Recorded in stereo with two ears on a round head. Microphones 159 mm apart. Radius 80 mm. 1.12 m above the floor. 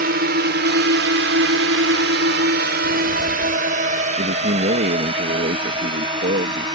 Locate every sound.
0.0 s a drone: 55° right (ahead or behind); by 6.8 s 25° right (ahead or behind)
2.8 s footsteps: 5° right (ahead or behind)
4.2 s a man speaking: 55° right (ahead or behind)